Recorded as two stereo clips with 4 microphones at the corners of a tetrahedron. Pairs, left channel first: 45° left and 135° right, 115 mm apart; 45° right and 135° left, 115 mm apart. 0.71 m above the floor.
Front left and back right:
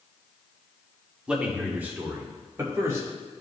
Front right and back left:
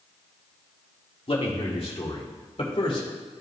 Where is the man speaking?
55° right, 1.5 m; by 3.1 s 75° right, 2.5 m.